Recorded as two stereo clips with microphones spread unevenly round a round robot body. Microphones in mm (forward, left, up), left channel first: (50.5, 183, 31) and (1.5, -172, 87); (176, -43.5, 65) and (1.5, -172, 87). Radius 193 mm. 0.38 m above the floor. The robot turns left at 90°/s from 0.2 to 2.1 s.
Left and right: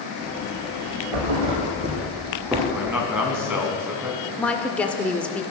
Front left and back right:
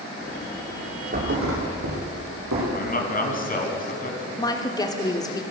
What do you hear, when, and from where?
1.1 s a thud: 95° right, 4.5 m; by 2.6 s straight behind, 4.5 m
2.7 s a man speaking: 10° right, 4 m
4.4 s a woman speaking: 25° left, 1.4 m